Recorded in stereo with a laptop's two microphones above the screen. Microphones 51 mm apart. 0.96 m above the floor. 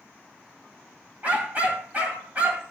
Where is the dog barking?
30° right (ahead or behind), 2.5 m.